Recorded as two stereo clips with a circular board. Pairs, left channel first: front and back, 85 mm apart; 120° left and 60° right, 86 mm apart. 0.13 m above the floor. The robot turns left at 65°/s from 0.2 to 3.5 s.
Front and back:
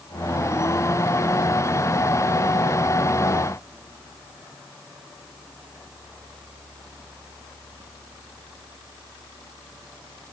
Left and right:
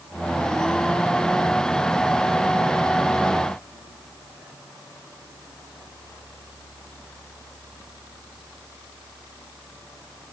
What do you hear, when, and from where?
Only background noise.